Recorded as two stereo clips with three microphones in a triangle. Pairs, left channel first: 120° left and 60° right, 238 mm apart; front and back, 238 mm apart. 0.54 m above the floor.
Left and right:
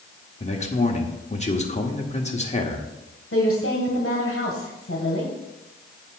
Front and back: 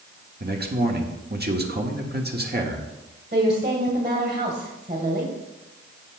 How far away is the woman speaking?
About 2 m.